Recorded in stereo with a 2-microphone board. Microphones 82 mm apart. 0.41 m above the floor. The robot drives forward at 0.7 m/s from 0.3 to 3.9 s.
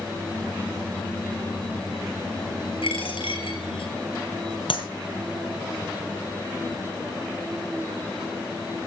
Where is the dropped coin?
85° left, 4.5 m.